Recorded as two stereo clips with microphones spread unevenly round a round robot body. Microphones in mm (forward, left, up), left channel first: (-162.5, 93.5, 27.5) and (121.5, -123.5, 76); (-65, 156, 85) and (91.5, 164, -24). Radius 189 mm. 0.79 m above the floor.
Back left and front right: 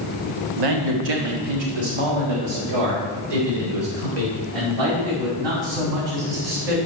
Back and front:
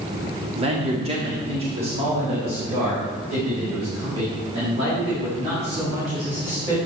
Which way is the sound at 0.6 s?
15° right.